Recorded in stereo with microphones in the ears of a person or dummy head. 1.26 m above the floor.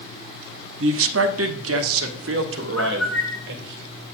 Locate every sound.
0.8 s a man speaking: 70° right (ahead or behind), 1.0 m
2.8 s a bird: 5° left (ahead or behind), 1.2 m